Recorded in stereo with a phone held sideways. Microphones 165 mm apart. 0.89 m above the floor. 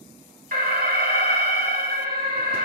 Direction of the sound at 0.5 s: 60° right (ahead or behind).